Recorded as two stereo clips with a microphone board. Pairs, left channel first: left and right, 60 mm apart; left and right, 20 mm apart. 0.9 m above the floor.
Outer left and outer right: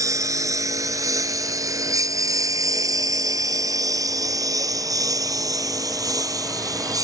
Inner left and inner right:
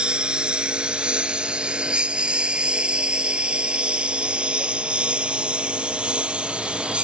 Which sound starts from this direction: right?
A lawn mower, at 0.0 s.